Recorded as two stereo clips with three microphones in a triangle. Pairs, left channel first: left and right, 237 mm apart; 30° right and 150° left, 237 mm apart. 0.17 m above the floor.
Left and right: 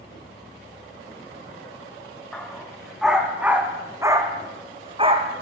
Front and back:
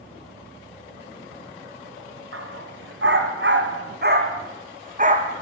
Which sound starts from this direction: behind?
A dog barking, at 2.3 s.